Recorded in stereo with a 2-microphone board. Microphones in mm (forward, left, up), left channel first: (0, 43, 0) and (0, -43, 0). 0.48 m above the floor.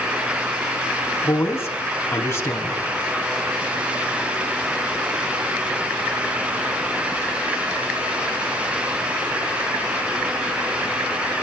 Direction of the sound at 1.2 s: 30° left (ahead or behind).